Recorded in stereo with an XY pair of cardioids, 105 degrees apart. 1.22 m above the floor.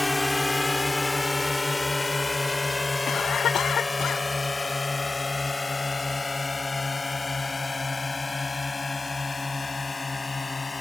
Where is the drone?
15° left; by 10.8 s 25° left.